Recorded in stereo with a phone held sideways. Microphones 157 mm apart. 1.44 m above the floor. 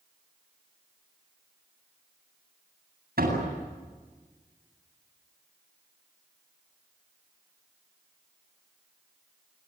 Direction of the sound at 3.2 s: 80° right.